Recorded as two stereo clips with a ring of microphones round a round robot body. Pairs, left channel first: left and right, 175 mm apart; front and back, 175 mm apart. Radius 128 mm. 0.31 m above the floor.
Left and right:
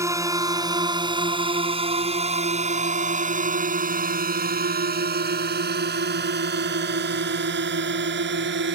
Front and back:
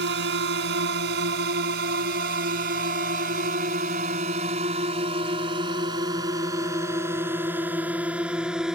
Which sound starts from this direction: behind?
A drone, at 0.0 s.